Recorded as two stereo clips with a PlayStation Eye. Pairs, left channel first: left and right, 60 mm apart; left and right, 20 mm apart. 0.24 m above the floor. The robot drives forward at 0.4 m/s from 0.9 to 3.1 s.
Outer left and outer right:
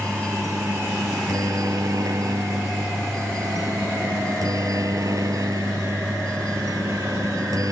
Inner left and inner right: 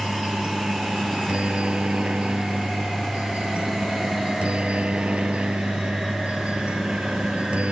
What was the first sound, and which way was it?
A helicopter, 70° right (ahead or behind).